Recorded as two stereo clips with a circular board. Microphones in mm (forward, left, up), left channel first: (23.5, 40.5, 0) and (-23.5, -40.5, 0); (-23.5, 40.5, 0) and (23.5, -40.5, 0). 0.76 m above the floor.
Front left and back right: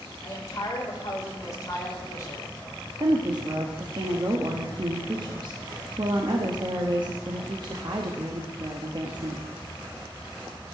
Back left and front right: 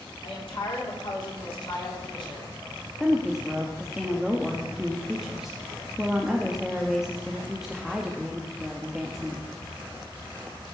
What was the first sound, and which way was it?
A woman speaking, 110° left.